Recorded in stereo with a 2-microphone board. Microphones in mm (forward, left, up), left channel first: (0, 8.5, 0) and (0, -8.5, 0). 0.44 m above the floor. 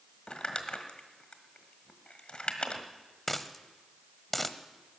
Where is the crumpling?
55° left (ahead or behind), 1.4 m.